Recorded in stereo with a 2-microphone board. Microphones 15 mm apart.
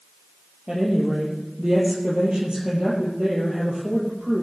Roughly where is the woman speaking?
Right.